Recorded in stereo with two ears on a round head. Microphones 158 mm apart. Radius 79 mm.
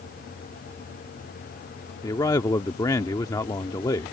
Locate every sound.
2.0 s a man speaking: 20° left (ahead or behind)